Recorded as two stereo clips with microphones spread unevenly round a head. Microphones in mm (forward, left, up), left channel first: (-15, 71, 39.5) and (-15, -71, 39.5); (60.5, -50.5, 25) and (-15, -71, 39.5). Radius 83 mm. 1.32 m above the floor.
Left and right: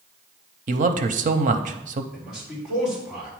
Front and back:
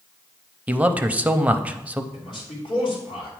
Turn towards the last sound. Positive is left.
turn(degrees=-5)